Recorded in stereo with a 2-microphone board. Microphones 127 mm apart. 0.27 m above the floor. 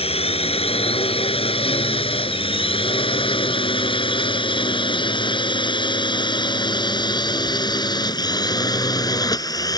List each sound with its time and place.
0.0 s a drone: 50° left (ahead or behind); by 9.8 s 30° left (ahead or behind)